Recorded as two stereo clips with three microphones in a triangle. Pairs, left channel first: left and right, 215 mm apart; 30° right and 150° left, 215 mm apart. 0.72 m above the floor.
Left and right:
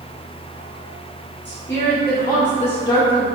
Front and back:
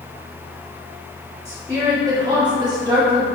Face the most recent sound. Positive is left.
turn(degrees=175)